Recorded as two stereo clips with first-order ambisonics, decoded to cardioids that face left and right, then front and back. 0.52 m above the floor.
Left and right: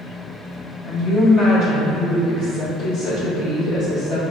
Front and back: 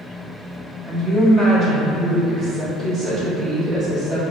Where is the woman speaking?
115° left, 1.6 m.